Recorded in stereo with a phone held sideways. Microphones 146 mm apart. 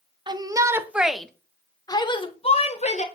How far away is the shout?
About 1.2 m.